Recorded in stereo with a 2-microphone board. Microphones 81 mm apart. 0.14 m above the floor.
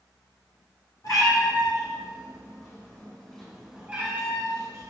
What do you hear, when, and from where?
1.0 s a cat meowing: 60° left (ahead or behind), 1.8 m; by 4.9 s 45° right (ahead or behind), 1.2 m